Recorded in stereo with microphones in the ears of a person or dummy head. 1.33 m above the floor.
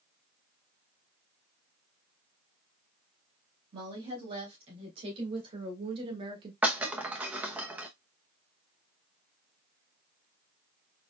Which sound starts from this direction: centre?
Breaking glass, at 6.6 s.